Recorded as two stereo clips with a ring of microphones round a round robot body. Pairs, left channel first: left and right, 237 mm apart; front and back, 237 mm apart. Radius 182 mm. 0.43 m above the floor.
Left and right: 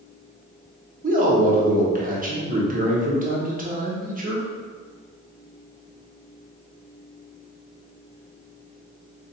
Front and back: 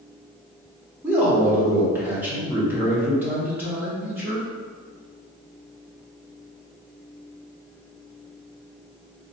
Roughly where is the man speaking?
Right.